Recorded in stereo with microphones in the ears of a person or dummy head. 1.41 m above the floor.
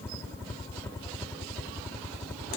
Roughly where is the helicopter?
Centre.